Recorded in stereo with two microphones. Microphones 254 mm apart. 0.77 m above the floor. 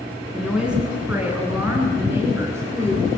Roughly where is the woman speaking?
Centre.